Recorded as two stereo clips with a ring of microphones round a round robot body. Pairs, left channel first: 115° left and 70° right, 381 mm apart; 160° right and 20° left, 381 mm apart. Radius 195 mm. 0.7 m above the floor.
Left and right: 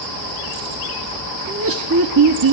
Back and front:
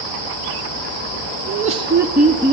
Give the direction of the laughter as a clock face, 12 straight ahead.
1 o'clock.